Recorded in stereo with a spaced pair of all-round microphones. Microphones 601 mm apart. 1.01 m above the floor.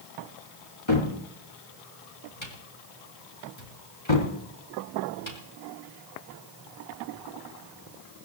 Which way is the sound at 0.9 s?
50° left (ahead or behind).